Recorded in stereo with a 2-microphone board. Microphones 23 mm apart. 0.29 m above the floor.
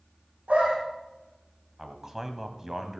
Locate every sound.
0.5 s a dog barking: 70° right (ahead or behind), 5.5 m
1.8 s a man speaking: 20° right (ahead or behind), 1.5 m